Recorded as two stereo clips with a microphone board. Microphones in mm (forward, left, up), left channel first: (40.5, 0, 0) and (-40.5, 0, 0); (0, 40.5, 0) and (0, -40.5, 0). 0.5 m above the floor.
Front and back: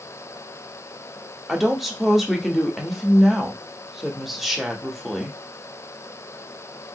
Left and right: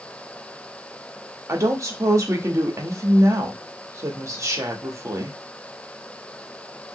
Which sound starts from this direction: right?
A woman speaking, at 1.5 s.